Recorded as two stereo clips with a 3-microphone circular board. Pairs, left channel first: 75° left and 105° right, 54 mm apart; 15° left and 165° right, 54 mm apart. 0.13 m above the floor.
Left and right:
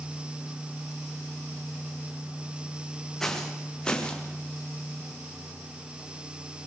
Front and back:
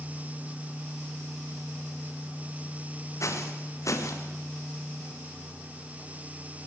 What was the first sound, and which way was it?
Footsteps, 5° right.